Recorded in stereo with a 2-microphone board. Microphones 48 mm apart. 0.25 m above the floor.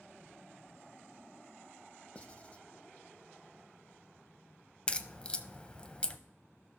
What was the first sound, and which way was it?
Writing, 25° left (ahead or behind).